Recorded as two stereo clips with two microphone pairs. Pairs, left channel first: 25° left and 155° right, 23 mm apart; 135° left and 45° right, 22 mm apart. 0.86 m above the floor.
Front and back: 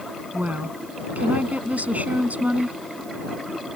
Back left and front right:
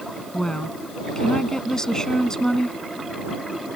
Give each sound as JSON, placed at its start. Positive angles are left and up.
{"t": 0.3, "sound": "a woman speaking", "azimuth_deg": -160}